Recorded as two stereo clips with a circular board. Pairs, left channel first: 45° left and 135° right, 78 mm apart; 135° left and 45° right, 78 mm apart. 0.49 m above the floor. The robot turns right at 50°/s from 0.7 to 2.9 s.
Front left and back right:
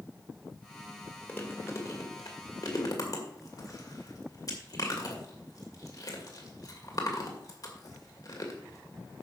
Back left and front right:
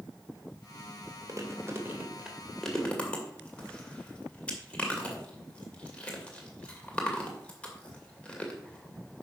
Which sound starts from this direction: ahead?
Chewing, at 1.3 s.